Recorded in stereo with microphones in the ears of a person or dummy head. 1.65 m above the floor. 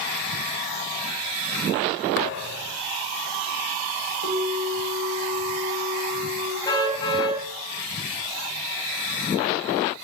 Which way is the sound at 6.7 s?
30° left (ahead or behind).